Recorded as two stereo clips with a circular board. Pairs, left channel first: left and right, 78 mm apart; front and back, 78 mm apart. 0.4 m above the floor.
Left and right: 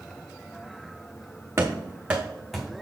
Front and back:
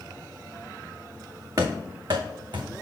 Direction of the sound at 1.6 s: 145° right.